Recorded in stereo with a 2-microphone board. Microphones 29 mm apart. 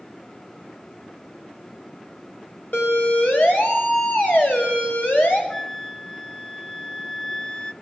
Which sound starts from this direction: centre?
A flute, at 5.5 s.